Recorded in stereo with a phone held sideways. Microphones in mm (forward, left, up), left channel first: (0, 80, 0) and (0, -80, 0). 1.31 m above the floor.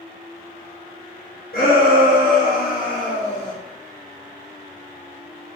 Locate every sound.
1.5 s a shout: 65° left (ahead or behind), 1.1 m; by 3.5 s 30° left (ahead or behind), 0.6 m